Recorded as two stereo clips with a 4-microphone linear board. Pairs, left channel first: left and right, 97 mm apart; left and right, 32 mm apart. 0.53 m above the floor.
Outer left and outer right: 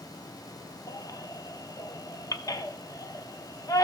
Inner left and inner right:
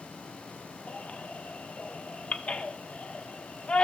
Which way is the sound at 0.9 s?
35° left (ahead or behind).